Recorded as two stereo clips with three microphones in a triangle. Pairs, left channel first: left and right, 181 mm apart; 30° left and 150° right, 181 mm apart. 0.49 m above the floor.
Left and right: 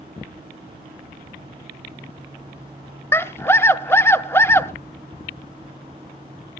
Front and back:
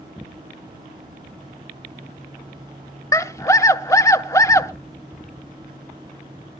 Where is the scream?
50° left, 0.8 m.